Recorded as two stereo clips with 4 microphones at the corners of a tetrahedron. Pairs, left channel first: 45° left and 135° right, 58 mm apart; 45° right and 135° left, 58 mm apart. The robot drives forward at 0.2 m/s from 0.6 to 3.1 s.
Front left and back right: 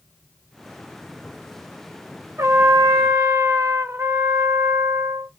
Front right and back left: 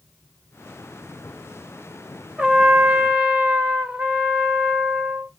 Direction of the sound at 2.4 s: 155° right.